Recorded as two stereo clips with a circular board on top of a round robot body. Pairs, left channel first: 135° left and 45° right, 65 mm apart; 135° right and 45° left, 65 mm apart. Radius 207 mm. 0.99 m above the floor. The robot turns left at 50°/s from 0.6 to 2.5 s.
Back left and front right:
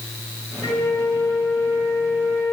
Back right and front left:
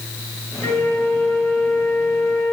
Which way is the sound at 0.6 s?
170° left.